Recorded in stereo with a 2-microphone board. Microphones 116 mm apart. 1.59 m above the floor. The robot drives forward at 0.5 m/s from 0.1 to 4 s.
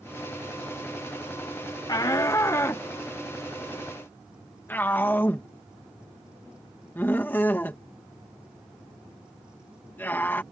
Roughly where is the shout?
Left.